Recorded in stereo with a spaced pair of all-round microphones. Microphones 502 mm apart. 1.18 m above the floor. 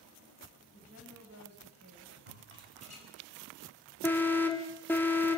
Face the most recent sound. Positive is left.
turn(degrees=5)  # may be behind; listen again after turning